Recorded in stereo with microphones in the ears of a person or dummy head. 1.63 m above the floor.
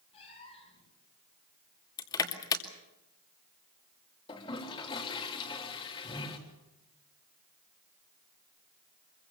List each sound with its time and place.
0.1 s a cat meowing: 35° left (ahead or behind), 7.5 m
2.0 s crushing: 20° left (ahead or behind), 2 m
4.3 s a toilet flushing: 30° left (ahead or behind), 3 m